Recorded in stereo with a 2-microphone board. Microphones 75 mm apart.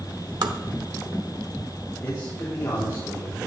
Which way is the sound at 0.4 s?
65° right (ahead or behind).